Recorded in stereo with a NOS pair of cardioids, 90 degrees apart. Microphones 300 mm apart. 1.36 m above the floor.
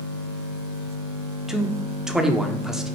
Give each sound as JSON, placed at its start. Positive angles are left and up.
{"t": 1.5, "sound": "a man speaking", "azimuth_deg": 0, "distance_m": 0.6}